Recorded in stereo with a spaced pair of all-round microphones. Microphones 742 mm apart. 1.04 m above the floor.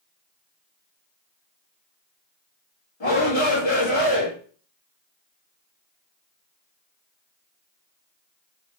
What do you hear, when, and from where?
3.0 s a shout: 50° left (ahead or behind), 1.3 m